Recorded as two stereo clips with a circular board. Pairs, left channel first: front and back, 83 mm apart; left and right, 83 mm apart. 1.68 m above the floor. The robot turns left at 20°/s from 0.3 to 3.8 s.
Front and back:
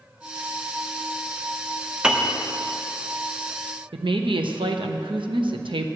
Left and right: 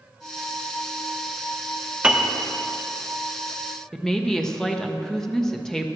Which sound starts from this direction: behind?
A woman speaking, at 3.9 s.